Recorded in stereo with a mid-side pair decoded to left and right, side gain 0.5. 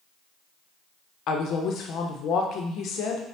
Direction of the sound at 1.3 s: 65° left.